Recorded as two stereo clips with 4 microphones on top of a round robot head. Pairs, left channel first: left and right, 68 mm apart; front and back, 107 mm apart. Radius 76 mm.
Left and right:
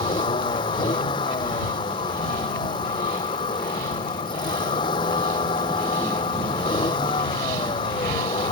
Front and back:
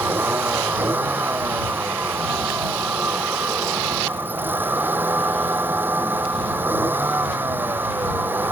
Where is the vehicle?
110° left.